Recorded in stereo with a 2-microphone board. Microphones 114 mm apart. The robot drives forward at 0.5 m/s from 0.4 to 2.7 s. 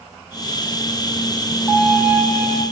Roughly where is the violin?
Centre.